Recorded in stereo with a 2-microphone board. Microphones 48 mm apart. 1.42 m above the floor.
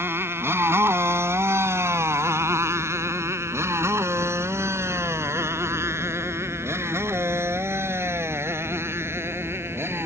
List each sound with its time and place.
0.0 s a motorcycle: 60° right (ahead or behind)